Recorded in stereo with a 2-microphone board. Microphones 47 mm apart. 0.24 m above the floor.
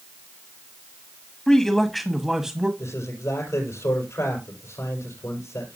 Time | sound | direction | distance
1.5 | a man speaking | 10° left (ahead or behind) | 1.5 m
2.8 | a man speaking | 80° left | 5 m